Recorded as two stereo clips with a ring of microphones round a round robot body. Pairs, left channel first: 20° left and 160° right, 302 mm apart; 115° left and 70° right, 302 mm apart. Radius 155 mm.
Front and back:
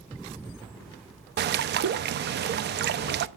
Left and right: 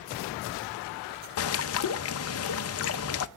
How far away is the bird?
About 0.6 m.